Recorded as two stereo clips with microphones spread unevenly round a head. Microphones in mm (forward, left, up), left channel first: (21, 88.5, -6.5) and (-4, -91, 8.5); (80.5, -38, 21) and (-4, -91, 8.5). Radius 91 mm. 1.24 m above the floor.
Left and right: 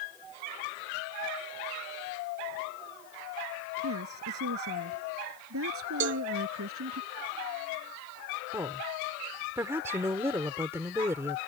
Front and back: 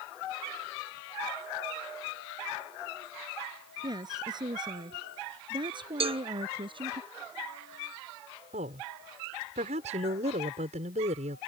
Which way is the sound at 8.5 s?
175° right.